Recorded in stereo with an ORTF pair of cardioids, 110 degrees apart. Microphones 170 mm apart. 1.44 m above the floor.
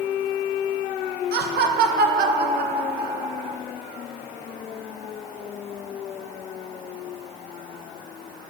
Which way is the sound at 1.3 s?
70° right.